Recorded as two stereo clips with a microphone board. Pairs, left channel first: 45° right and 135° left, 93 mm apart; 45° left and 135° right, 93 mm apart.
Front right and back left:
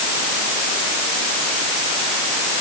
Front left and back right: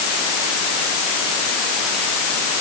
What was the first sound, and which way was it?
Only background noise.